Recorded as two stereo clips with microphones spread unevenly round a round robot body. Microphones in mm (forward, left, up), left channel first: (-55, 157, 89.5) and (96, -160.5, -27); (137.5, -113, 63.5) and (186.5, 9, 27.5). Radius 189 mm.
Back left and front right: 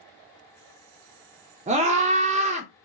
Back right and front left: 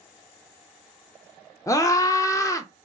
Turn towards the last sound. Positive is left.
turn(degrees=-35)